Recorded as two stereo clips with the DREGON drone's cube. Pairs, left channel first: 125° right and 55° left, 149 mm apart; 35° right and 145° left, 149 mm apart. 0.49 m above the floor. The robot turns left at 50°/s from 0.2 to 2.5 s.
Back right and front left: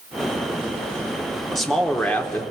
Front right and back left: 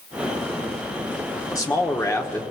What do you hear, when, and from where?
1.5 s a man speaking: 35° right, 0.9 m; by 2.4 s 80° right, 0.9 m